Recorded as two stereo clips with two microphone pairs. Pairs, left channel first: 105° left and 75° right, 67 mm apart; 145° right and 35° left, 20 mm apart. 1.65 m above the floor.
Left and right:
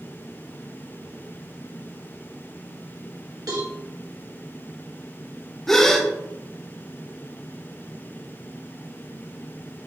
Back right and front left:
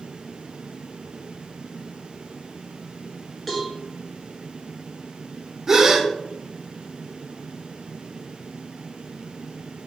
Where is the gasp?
40° left, 0.9 m.